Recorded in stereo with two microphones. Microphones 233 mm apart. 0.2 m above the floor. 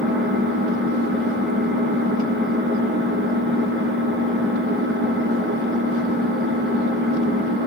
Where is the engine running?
55° right (ahead or behind), 2.5 m.